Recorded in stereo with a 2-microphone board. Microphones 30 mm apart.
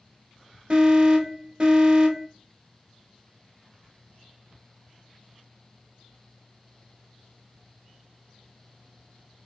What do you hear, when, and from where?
0.7 s an alarm: 30° right (ahead or behind), 0.8 m